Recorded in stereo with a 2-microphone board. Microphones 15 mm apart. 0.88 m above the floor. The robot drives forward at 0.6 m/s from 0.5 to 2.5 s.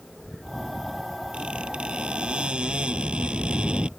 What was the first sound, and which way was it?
A squeak, 80° right.